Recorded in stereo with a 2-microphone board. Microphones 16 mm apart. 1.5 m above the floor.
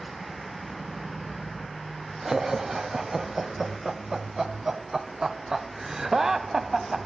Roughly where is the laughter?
Right.